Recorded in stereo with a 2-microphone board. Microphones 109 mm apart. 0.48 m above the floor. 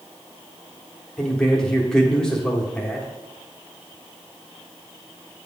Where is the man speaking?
10° left (ahead or behind), 1.1 m.